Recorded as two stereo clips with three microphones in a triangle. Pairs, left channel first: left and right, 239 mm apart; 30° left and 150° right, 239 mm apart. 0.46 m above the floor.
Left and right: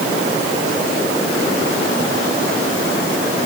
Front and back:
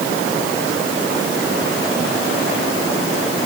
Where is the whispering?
No whispering in this recording.